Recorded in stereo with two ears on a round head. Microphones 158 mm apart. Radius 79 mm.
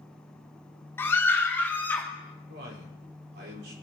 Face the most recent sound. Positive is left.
turn(degrees=-65)  # may be behind; listen again after turning